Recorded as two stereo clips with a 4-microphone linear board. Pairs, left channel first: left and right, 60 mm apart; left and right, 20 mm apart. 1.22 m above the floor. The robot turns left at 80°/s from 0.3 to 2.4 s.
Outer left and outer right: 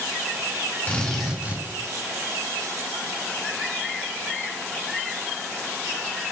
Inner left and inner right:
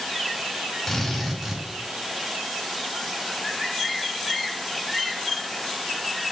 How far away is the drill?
About 2 m.